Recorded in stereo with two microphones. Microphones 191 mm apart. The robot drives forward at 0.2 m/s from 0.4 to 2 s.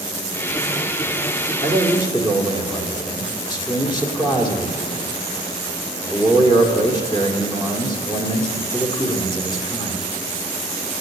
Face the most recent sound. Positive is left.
turn(degrees=25)  # may be behind; listen again after turning